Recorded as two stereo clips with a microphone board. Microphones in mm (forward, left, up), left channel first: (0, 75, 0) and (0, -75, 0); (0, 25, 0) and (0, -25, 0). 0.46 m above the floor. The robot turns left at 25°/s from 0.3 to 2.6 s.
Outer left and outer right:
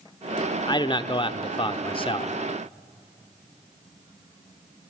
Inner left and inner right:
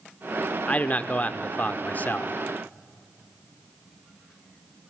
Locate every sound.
0.7 s a man speaking: 125° left, 0.8 m; by 2.3 s 85° left, 0.8 m